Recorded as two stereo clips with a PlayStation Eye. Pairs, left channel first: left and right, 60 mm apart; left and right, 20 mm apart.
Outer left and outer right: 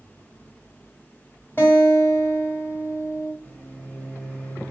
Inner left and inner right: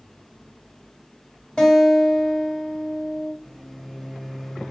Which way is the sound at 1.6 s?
35° left (ahead or behind).